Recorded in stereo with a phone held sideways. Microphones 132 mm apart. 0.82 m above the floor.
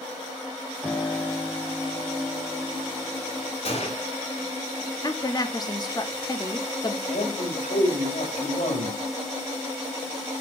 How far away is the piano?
About 1.6 m.